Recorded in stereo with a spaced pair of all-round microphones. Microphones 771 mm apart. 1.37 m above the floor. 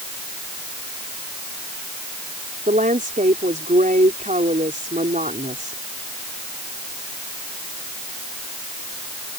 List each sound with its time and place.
2.7 s a woman speaking: 10° right (ahead or behind)